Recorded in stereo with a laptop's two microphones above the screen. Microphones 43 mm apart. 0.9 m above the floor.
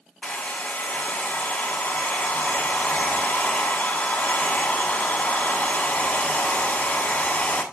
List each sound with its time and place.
0.2 s a hair dryer: 35° left (ahead or behind), 1.4 m